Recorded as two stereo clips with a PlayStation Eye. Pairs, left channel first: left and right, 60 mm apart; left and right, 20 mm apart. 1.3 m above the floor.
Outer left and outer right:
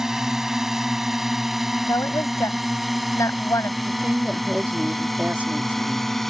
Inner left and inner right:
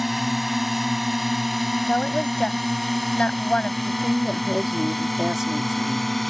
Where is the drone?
10° right (ahead or behind); by 6.3 s 5° left (ahead or behind).